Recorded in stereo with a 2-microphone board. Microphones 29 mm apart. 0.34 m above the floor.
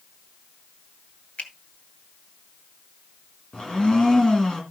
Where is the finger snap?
50° left (ahead or behind), 2 m.